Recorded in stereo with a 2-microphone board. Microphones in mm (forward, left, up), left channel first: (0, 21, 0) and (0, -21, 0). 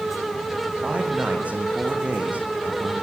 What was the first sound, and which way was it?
A man speaking, 35° right (ahead or behind).